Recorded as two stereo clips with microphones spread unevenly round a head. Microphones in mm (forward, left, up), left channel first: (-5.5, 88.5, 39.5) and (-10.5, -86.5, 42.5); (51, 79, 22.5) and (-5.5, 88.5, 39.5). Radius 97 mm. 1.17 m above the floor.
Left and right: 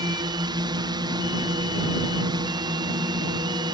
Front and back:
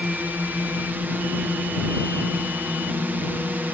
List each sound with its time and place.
0.0 s a drone: 125° right